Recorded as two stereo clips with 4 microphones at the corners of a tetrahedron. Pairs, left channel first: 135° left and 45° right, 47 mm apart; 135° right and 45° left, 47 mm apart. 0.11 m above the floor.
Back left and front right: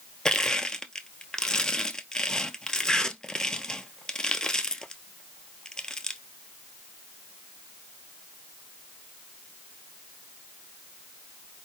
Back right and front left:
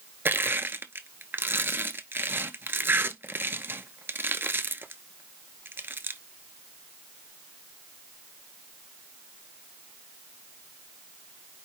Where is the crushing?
65° left, 0.6 m.